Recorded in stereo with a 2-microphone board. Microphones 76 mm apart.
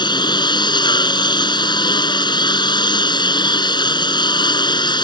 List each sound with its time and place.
0.0 s a lawn mower: 70° left (ahead or behind)